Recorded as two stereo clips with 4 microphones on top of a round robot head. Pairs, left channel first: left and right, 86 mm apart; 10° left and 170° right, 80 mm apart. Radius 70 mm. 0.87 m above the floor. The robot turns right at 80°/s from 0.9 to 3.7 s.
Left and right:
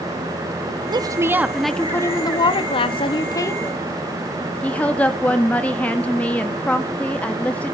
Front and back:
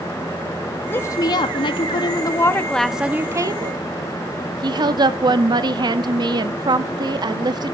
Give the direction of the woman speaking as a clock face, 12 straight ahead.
2 o'clock.